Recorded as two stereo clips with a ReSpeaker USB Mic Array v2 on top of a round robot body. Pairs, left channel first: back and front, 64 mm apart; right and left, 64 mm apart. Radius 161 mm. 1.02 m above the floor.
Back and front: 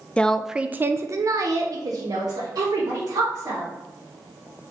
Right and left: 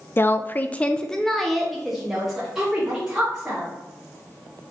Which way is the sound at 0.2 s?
120° right.